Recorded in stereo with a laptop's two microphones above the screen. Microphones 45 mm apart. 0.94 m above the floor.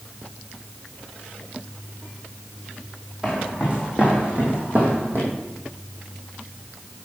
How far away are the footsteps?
About 2 m.